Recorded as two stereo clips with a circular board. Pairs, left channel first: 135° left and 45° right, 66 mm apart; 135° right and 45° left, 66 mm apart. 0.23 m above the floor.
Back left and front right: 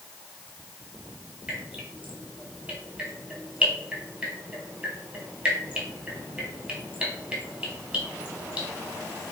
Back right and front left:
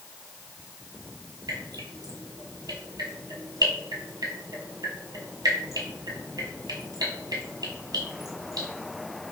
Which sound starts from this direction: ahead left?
Dripping, at 1.5 s.